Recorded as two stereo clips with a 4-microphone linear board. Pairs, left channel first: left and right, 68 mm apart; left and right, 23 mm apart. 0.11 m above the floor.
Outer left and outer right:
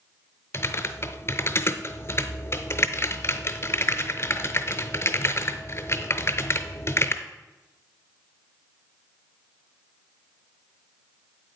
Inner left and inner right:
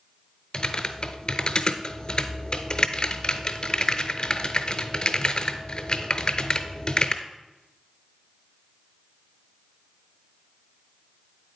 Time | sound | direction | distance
0.5 | typing on a keyboard | 40° left (ahead or behind) | 0.6 m